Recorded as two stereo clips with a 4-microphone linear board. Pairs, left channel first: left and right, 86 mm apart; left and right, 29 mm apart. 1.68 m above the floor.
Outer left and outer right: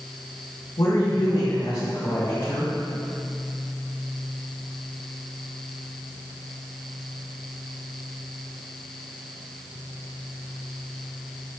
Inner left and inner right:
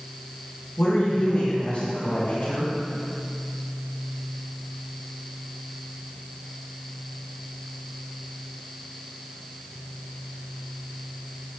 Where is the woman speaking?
80° left, 2.5 m.